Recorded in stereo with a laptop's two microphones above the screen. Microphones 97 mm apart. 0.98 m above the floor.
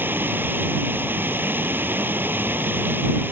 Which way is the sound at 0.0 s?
20° right (ahead or behind).